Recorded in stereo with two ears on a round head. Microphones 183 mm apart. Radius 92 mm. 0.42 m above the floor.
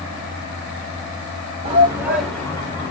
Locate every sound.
1.6 s a shout: 30° right (ahead or behind), 0.9 m; by 2.9 s 25° left (ahead or behind), 1.3 m